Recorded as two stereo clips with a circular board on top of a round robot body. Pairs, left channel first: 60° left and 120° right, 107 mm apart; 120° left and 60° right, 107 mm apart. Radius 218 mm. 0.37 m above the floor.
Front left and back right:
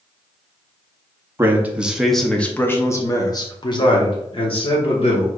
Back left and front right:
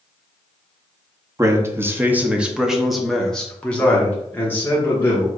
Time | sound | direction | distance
1.4 | a man speaking | 80° right | 1.1 m